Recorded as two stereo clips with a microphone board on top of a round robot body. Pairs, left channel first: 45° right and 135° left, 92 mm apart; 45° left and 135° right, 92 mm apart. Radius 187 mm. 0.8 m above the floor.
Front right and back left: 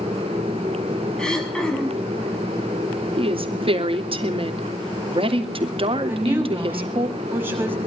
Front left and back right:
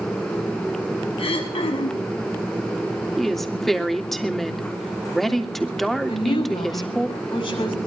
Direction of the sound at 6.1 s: 70° left.